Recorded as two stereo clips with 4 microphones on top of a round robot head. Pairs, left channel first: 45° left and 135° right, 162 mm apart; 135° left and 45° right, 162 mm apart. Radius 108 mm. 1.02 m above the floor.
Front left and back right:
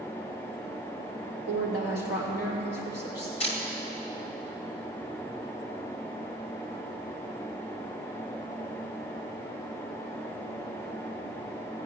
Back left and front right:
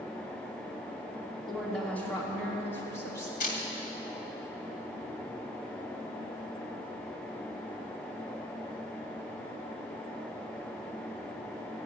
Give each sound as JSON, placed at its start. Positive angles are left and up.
{"t": 1.5, "sound": "a woman speaking", "azimuth_deg": 45, "distance_m": 3.0}
{"t": 3.4, "sound": "a camera shutter", "azimuth_deg": 95, "distance_m": 2.5}